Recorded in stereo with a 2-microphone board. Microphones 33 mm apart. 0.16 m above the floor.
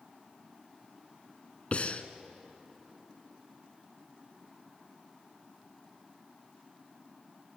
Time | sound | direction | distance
1.7 | breathing | 45° left (ahead or behind) | 1.0 m